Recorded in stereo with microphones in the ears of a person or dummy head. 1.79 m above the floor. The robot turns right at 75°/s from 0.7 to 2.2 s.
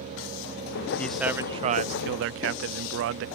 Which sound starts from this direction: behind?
A man speaking, at 1.0 s.